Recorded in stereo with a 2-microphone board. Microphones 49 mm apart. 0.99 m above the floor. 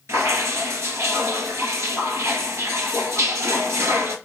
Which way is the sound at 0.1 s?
70° right (ahead or behind).